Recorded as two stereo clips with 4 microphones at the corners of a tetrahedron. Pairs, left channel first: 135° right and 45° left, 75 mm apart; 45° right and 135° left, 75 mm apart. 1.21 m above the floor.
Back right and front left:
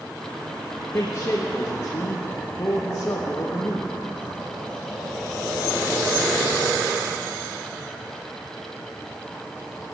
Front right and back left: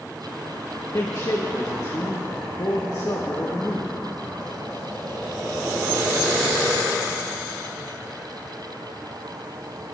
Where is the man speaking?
80° right, 1.2 m.